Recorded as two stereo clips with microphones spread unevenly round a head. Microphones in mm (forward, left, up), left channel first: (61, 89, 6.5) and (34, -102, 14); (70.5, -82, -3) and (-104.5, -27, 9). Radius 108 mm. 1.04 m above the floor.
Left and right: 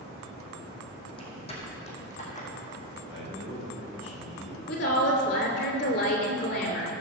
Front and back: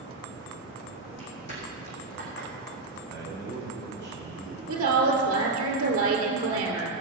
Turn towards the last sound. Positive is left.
turn(degrees=125)